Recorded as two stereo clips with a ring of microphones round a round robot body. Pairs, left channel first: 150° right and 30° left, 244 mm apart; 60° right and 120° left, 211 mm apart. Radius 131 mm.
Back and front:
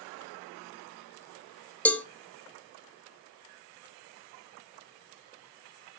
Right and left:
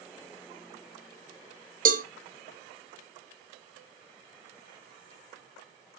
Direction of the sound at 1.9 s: 130° left.